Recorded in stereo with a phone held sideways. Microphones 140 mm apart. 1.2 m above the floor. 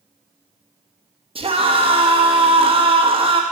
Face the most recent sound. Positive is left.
turn(degrees=-40)  # may be behind; listen again after turning